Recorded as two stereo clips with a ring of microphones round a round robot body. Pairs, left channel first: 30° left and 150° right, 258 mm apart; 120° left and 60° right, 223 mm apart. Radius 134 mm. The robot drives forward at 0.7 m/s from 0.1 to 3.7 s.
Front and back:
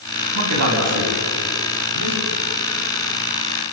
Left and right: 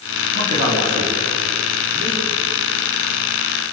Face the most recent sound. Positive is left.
turn(degrees=-135)